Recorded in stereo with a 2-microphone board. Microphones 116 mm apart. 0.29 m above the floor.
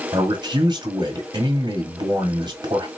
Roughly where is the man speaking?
Right.